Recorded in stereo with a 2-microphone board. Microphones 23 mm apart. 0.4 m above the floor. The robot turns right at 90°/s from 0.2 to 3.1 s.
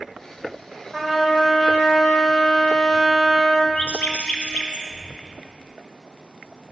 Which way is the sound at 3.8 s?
65° left (ahead or behind).